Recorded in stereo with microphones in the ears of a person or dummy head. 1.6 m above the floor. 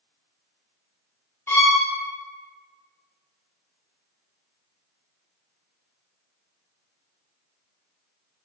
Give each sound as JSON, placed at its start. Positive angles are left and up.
{"t": 1.5, "sound": "a violin", "side_deg": 15, "distance_m": 0.6}